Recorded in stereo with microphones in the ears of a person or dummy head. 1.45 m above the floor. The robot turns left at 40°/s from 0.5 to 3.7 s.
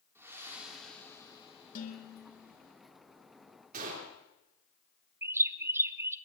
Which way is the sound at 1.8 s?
55° left.